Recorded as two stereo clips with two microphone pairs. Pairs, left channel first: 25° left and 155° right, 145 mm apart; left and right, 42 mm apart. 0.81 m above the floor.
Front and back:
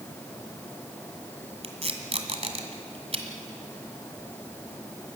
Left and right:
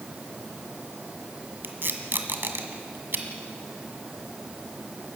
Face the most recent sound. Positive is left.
turn(degrees=-110)